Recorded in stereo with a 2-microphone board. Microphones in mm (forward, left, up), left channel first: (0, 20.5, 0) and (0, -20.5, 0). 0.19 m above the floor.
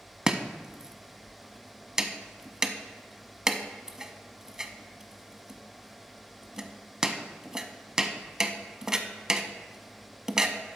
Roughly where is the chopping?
Centre.